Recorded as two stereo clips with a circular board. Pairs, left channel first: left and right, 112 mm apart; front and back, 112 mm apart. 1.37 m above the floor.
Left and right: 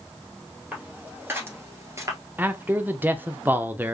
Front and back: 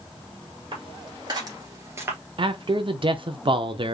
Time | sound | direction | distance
0.7 | footsteps | 160° right | 2 m
2.4 | a man speaking | 160° right | 0.6 m